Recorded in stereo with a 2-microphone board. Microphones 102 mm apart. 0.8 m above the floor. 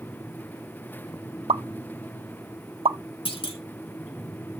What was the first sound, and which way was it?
A pop, 75° right (ahead or behind).